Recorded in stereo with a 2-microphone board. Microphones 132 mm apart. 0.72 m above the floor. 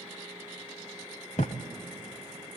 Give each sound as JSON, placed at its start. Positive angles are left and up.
{"t": 1.4, "sound": "a thud", "side_deg": 60, "distance_m": 1.0}